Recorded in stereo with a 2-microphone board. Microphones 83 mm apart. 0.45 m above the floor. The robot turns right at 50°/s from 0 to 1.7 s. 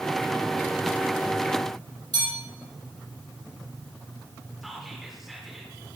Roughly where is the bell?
Right.